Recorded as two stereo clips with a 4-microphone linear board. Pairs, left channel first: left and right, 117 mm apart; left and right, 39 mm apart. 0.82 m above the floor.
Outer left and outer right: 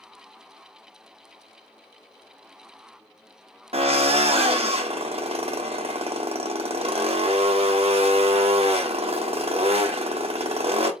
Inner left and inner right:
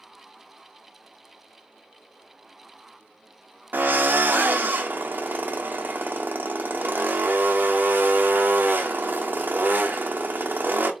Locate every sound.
3.7 s a drill: 60° right (ahead or behind), 0.8 m